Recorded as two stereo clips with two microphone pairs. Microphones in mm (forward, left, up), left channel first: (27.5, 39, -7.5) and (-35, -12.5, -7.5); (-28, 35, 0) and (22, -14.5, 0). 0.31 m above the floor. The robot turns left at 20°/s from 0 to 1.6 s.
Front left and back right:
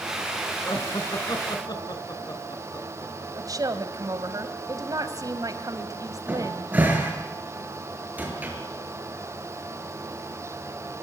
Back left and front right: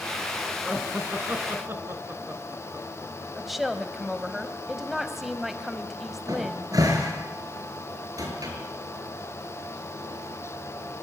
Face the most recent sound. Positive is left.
turn(degrees=-70)